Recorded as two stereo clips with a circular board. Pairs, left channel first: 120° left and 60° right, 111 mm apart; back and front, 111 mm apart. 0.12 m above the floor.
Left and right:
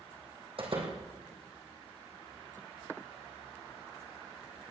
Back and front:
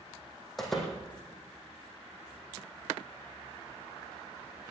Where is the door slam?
90° right, 3 m.